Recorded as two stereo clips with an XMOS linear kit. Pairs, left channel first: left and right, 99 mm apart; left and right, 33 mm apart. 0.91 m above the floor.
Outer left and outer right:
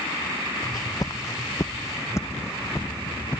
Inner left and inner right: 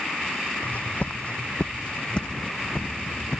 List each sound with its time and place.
0.6 s footsteps: 45° left (ahead or behind); by 3.4 s 20° left (ahead or behind)